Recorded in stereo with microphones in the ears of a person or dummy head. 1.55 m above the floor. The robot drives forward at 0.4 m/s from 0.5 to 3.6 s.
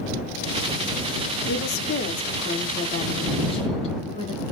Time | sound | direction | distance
1.5 | a woman speaking | 55° left (ahead or behind) | 0.7 m